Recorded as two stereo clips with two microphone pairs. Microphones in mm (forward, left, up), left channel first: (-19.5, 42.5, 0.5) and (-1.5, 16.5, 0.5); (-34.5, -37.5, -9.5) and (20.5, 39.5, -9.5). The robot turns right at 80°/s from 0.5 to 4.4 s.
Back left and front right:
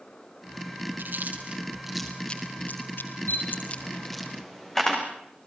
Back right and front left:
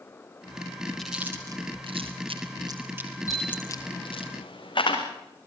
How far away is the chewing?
About 4 m.